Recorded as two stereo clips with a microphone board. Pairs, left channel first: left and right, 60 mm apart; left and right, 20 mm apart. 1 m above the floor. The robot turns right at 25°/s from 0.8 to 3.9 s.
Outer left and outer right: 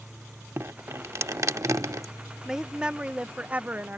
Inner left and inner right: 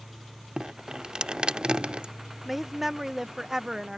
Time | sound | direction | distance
0.6 | dripping | 125° right | ?
2.5 | a woman speaking | 165° right | ?